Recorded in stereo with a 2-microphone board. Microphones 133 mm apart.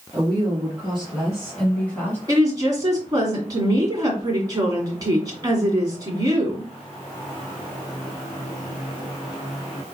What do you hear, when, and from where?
0.1 s a woman speaking: 5° right (ahead or behind), 2.5 m; by 2.2 s 15° left (ahead or behind), 1.4 m
2.3 s a woman speaking: 30° right (ahead or behind), 2.0 m